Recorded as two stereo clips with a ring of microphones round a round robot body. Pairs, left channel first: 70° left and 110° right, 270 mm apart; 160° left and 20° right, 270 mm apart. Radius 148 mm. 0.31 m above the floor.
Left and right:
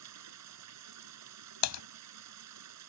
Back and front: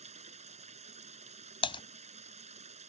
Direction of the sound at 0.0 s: 90° right.